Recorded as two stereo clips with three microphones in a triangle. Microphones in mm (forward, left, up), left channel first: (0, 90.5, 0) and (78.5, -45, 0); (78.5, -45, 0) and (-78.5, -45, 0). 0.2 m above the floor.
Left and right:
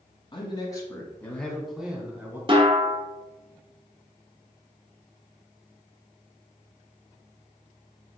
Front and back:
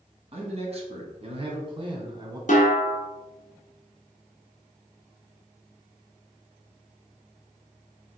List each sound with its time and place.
0.3 s a man speaking: 160° left, 1.5 m; by 2.4 s 130° right, 1.5 m
2.5 s a snare drum: 10° right, 1.1 m